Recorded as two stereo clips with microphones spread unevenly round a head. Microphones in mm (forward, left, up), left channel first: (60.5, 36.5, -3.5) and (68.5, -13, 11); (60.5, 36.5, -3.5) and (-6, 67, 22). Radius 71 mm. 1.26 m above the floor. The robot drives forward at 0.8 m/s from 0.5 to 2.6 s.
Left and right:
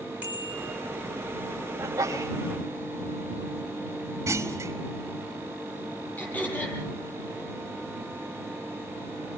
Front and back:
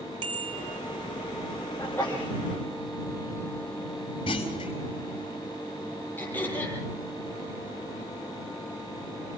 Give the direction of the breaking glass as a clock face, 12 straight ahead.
No breaking glass in this recording.